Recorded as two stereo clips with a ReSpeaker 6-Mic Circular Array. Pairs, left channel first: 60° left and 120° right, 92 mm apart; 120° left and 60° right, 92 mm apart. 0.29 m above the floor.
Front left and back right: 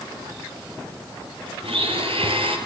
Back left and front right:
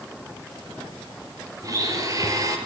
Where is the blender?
110° right, 5 m.